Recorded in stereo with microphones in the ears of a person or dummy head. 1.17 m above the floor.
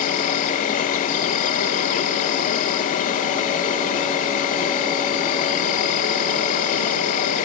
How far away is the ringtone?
No ringtone in this recording.